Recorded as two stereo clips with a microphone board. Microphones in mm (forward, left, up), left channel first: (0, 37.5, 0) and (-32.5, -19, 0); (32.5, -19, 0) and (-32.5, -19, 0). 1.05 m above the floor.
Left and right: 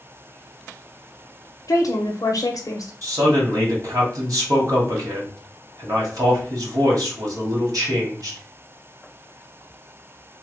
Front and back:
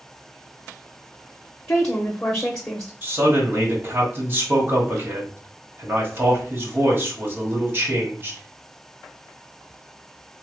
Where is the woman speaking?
65° left, 0.5 m.